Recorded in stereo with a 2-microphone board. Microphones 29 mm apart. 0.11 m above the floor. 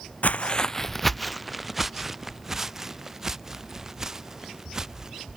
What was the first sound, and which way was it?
Footsteps, 70° left (ahead or behind).